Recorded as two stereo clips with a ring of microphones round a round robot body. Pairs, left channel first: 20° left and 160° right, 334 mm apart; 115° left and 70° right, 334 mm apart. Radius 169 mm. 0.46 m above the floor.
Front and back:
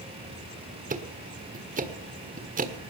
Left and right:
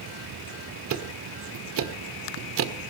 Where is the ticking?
100° right, 1.6 m.